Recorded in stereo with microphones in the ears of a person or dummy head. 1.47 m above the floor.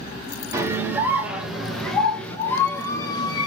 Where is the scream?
15° right (ahead or behind), 2.5 m; by 3.5 s 25° left (ahead or behind), 2.5 m.